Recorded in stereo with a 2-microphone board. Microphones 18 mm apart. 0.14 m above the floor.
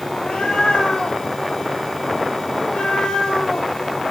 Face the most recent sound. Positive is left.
turn(degrees=75)  # may be behind; listen again after turning